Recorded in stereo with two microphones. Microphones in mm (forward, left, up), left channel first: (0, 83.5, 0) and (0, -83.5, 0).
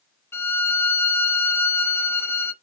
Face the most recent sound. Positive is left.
turn(degrees=15)  # may be behind; listen again after turning